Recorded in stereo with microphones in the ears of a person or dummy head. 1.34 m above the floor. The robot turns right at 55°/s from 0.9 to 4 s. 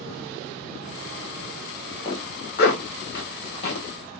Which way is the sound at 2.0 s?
30° left (ahead or behind).